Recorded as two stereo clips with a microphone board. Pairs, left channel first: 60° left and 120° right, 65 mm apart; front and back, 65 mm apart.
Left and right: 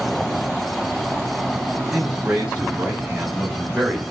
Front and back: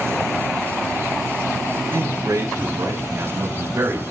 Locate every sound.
1.9 s a man speaking: 165° left, 4 m; by 4.0 s 145° left, 2.5 m